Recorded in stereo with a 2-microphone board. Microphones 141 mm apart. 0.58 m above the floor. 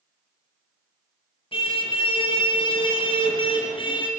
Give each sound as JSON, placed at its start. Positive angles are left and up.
{"t": 1.5, "sound": "a car horn", "side_deg": 40, "distance_m": 6.0}